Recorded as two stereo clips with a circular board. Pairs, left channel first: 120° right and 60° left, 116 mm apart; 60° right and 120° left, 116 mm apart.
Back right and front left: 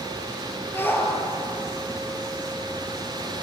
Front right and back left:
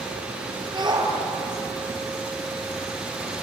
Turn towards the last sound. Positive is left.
turn(degrees=170)